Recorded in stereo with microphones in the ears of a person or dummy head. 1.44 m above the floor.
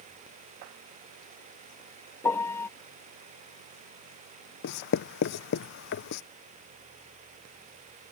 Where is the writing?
65° left (ahead or behind).